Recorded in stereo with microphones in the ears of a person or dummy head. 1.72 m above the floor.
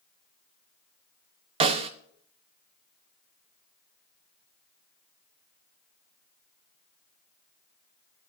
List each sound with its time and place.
1.6 s a snare drum: 30° right (ahead or behind), 0.6 m